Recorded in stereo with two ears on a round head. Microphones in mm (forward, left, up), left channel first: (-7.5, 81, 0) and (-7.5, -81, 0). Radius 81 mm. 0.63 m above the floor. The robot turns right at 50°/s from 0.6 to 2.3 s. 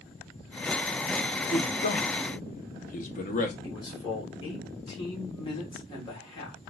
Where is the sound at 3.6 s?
30° left (ahead or behind), 2 m.